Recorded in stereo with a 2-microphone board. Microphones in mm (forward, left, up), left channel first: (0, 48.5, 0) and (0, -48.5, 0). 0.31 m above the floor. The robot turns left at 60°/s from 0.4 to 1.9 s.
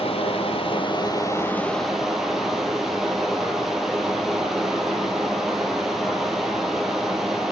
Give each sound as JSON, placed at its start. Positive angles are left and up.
{"t": 0.0, "sound": "running water", "azimuth_deg": 90, "distance_m": 1.0}